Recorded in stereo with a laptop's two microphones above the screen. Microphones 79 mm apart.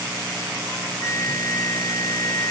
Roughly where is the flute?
Left.